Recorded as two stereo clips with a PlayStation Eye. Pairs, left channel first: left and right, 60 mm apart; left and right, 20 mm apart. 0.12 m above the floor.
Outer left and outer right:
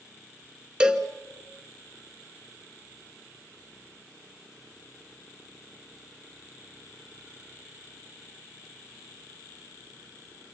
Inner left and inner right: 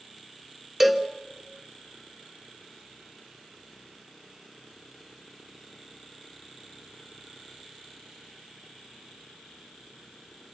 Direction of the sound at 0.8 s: 15° right (ahead or behind).